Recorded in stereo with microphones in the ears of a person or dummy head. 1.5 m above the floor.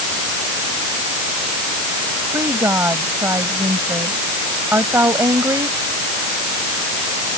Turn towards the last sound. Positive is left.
turn(degrees=-5)  # may be behind; listen again after turning